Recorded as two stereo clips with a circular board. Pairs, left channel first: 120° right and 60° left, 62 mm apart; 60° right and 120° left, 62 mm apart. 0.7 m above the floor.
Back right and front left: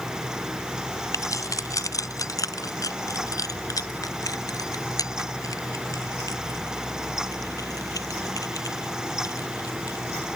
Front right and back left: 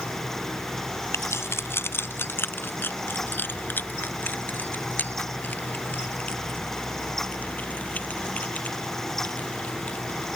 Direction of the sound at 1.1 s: 100° right.